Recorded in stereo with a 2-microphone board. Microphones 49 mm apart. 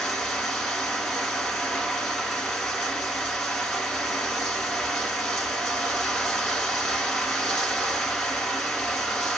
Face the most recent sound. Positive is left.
turn(degrees=5)  # may be behind; listen again after turning